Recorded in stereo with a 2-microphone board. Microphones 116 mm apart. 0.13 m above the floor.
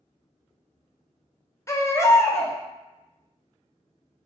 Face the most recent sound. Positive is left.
turn(degrees=25)  # may be behind; listen again after turning